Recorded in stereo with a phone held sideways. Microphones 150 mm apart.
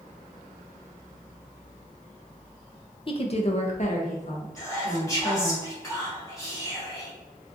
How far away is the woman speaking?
About 0.5 m.